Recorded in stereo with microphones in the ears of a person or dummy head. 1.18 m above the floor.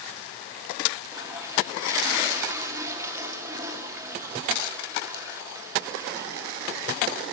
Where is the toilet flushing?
20° right (ahead or behind), 1.5 m.